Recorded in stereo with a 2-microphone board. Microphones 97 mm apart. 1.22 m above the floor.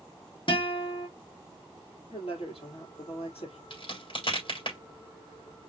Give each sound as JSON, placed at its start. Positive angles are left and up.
{"t": 0.5, "sound": "a guitar", "side_deg": 60, "distance_m": 1.7}
{"t": 2.1, "sound": "a woman speaking", "side_deg": 85, "distance_m": 3.5}
{"t": 3.7, "sound": "a crack", "side_deg": 60, "distance_m": 3.5}